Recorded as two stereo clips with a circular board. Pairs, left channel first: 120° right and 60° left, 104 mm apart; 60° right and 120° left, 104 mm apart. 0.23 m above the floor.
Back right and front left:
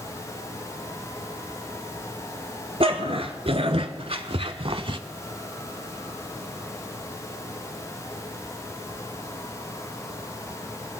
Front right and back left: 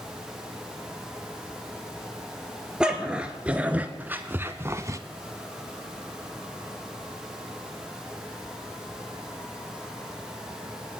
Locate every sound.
2.8 s a dog barking: 40° left, 1.6 m; by 5.0 s 70° left, 0.6 m